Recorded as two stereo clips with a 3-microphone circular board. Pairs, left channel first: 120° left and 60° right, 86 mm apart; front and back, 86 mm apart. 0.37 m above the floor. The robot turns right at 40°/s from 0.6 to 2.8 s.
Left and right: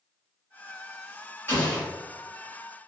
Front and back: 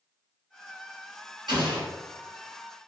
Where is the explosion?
Straight behind, 1.5 m; by 1.9 s 165° right, 1.5 m.